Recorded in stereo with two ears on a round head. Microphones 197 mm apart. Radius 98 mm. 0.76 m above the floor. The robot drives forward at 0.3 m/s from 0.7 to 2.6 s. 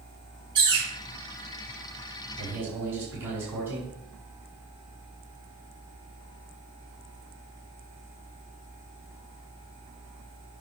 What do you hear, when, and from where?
0.6 s a bird: 20° right (ahead or behind), 3.5 m
2.4 s a man speaking: 10° right (ahead or behind), 5.5 m